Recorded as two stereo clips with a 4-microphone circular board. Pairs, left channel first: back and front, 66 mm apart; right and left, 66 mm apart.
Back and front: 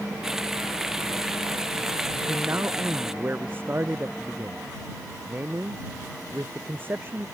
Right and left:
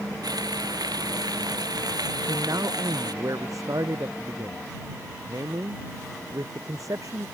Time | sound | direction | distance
0.2 | frying | 85° left | ?
2.1 | a man speaking | 60° left | ?